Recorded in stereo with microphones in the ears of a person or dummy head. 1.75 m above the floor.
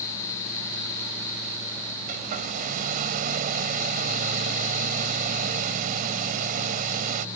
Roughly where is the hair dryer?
Right.